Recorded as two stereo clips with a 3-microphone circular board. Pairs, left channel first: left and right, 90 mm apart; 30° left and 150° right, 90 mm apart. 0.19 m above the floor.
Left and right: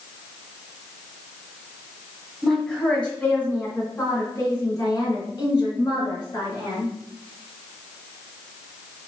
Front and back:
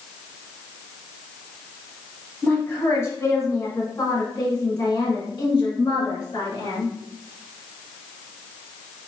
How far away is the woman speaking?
About 1.6 m.